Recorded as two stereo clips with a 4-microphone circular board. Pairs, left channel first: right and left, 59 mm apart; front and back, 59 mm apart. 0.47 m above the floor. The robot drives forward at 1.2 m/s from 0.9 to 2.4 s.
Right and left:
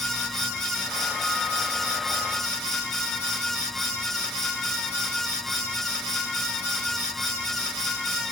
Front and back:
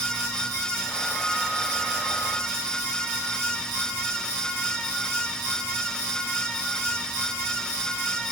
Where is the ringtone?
No ringtone in this recording.